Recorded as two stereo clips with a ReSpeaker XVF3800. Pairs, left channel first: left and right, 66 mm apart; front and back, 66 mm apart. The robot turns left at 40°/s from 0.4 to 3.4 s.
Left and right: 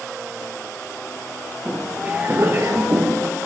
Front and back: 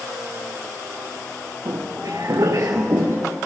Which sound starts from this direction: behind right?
Footsteps, at 1.6 s.